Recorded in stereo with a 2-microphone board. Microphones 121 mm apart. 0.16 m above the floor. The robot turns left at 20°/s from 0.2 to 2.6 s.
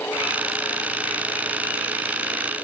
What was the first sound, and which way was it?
Only background noise.